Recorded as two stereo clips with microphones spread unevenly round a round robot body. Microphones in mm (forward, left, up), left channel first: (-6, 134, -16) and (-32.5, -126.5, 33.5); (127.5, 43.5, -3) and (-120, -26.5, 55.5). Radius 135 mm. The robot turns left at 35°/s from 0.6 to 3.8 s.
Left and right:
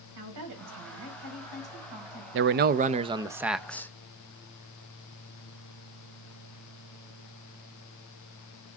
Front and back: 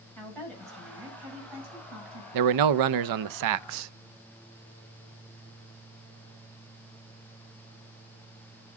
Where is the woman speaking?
70° right, 5.5 m; by 2.2 s 125° right, 5.5 m.